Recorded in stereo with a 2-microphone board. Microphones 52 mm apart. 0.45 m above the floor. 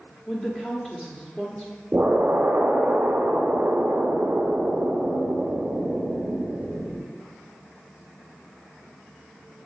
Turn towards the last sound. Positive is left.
turn(degrees=-45)  # may be behind; listen again after turning